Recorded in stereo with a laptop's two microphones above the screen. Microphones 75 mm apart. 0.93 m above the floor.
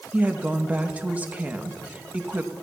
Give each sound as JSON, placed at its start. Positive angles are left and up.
{"t": 0.1, "sound": "a woman speaking", "side_deg": -20, "distance_m": 1.1}